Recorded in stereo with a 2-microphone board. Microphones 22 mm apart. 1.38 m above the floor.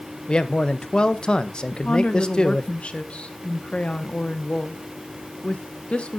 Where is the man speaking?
55° left (ahead or behind), 1.0 m.